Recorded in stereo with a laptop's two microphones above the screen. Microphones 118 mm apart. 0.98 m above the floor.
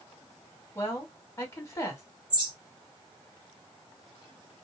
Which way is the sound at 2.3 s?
40° right (ahead or behind).